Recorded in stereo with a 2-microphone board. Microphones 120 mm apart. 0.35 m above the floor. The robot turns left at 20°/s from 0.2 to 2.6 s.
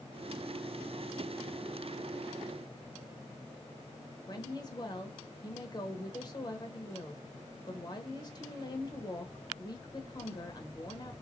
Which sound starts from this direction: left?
A woman speaking, at 4.3 s.